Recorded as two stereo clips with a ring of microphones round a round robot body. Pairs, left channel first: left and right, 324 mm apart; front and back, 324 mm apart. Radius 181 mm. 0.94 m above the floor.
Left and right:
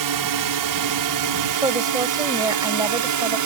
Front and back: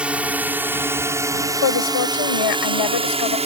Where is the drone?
95° right; by 3.5 s 110° right.